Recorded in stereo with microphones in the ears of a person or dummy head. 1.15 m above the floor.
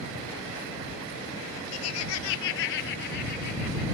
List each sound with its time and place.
1.7 s laughter: 70° left (ahead or behind); by 3.8 s 55° left (ahead or behind)